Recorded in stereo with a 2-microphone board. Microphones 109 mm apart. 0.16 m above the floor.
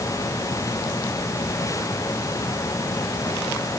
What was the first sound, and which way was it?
Only background noise.